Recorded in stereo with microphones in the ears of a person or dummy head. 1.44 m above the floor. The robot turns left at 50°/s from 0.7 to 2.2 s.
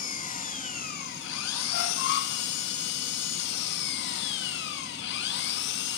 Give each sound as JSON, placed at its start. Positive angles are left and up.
{"t": 0.0, "sound": "an engine running", "azimuth_deg": 140, "distance_m": 1.8}
{"t": 1.7, "sound": "a squeak", "side_deg": 65, "distance_m": 1.3}